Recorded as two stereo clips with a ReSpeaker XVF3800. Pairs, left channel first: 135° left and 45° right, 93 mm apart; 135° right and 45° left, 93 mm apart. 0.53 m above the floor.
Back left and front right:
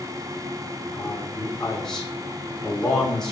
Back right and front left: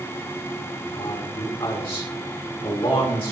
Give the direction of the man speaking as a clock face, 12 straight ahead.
5 o'clock.